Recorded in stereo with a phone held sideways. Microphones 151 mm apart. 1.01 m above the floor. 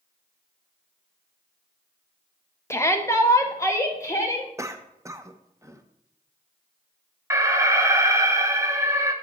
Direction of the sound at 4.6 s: 20° right (ahead or behind).